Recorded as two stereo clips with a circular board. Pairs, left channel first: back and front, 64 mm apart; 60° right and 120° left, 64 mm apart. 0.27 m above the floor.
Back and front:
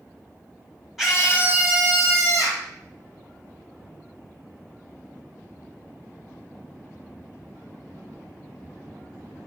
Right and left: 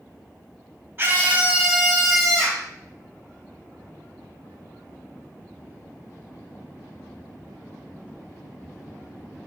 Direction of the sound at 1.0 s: 80° left.